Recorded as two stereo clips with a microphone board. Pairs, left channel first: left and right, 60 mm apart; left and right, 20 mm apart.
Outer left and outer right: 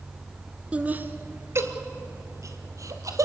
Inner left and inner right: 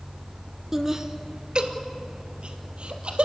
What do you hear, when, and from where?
0.7 s laughter: 20° right (ahead or behind), 1.3 m; by 3.3 s 65° right (ahead or behind), 3 m